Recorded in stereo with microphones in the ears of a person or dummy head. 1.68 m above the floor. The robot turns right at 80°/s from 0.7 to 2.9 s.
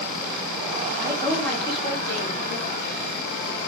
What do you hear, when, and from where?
1.0 s a woman speaking: 30° right, 3.5 m; by 3.0 s 125° left, 3.5 m